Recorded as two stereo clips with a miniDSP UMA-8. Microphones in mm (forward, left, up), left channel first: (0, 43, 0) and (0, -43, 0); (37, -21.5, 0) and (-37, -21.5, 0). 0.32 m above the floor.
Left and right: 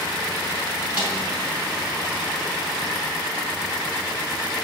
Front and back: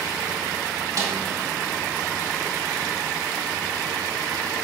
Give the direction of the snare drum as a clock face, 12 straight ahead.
5 o'clock.